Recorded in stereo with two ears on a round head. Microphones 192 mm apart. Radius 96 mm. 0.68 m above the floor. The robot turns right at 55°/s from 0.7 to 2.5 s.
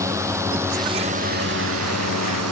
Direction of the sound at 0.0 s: 15° right (ahead or behind).